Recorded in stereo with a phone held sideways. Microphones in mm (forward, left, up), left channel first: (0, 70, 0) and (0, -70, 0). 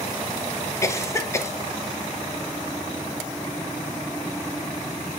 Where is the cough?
20° left (ahead or behind), 0.7 m.